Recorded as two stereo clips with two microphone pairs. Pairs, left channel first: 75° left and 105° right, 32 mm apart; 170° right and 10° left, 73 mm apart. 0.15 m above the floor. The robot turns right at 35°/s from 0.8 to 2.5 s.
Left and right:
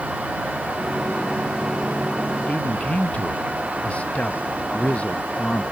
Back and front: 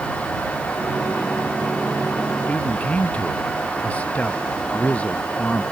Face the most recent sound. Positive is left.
turn(degrees=125)